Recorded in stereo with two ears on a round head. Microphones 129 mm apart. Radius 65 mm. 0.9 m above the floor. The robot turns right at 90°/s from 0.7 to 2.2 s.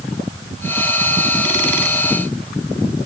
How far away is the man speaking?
I don't hear a man speaking.